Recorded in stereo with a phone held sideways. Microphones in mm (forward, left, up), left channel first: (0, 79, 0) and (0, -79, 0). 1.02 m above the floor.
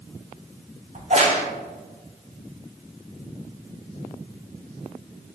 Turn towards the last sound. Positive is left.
turn(degrees=-50)  # may be behind; listen again after turning